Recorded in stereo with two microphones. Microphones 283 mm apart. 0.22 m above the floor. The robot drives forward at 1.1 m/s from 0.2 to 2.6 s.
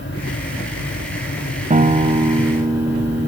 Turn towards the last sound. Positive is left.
turn(degrees=-10)  # may be behind; listen again after turning